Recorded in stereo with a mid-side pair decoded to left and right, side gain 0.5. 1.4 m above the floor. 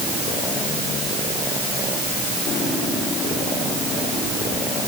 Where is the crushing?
No crushing in this recording.